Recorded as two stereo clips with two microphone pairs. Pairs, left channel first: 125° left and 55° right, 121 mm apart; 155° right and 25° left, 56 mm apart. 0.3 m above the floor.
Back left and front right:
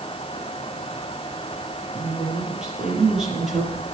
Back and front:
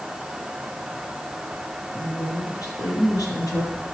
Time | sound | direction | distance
1.9 | a woman speaking | 140° right | 5.5 m